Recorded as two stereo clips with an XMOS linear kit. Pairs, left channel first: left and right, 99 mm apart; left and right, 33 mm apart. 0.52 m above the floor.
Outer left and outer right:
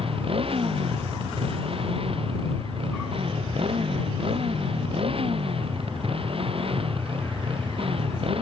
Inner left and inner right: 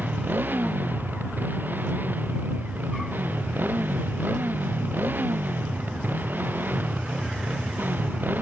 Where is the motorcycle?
70° right (ahead or behind).